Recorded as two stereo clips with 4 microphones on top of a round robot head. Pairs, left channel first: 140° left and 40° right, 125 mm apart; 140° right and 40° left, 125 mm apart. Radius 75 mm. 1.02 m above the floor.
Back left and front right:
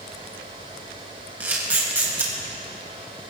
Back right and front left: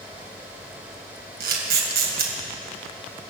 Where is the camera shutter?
35° left, 3 m.